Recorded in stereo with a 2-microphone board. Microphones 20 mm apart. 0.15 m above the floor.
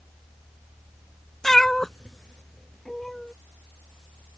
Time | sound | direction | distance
1.4 | a cat meowing | 20° left (ahead or behind) | ?